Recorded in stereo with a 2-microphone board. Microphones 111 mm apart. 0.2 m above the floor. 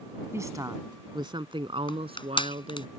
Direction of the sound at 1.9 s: 45° left (ahead or behind).